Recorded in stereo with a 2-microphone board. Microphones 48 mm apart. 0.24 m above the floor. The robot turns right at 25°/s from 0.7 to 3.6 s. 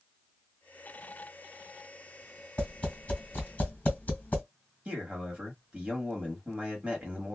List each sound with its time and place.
2.6 s tapping: 25° left (ahead or behind), 1.7 m; by 4.4 s 30° left (ahead or behind), 1.7 m
4.8 s a man speaking: 25° right (ahead or behind), 1.4 m